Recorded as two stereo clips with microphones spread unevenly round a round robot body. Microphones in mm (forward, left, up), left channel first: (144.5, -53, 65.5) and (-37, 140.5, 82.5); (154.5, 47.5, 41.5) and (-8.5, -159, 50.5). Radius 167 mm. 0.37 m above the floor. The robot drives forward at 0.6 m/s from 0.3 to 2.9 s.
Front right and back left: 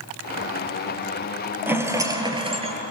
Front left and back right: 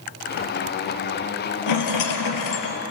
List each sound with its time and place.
1.7 s a rattle: 50° left, 2 m; by 2.8 s 70° left, 1.9 m